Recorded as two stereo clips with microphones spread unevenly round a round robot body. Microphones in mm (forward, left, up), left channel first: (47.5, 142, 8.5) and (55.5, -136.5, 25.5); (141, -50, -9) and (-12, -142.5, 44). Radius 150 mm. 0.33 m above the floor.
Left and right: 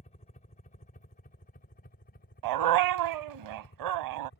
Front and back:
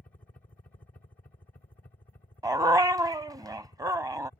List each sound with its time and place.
0.0 s a helicopter: 65° left; by 4.4 s 80° left
2.4 s a dog barking: 75° right